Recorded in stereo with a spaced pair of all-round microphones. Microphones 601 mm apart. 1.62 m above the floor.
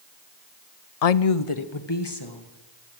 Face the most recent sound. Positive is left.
turn(degrees=35)  # may be behind; listen again after turning